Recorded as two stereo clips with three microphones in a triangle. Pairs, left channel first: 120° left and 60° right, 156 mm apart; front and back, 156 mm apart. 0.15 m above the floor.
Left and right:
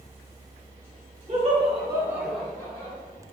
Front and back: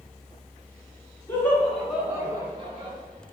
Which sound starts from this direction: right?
Laughter, at 1.3 s.